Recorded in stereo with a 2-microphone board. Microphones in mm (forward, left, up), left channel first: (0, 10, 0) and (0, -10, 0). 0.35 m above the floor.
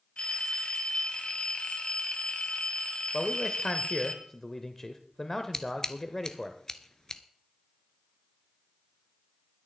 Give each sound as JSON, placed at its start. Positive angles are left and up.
{"t": 0.2, "sound": "a phone ringing", "side_deg": 65, "distance_m": 1.6}
{"t": 3.1, "sound": "a man speaking", "side_deg": 15, "distance_m": 0.9}
{"t": 5.5, "sound": "scissors", "side_deg": 25, "distance_m": 0.8}